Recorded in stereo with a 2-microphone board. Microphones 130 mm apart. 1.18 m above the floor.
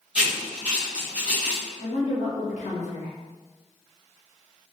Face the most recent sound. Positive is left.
turn(degrees=65)  # may be behind; listen again after turning